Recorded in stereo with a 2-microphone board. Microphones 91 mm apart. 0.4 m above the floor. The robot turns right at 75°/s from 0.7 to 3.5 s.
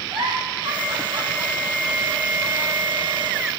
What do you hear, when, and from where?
0.1 s a giggle: 75° right (ahead or behind), 2.5 m; by 3.4 s 65° left (ahead or behind), 2.5 m